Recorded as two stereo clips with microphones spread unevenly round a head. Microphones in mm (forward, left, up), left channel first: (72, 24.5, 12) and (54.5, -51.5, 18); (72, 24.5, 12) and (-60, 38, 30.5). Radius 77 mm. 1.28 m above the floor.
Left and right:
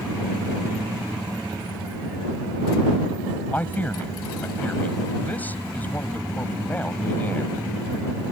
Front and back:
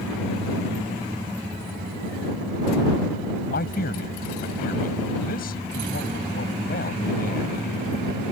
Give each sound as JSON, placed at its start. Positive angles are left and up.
{"t": 3.5, "sound": "a man speaking", "azimuth_deg": 10}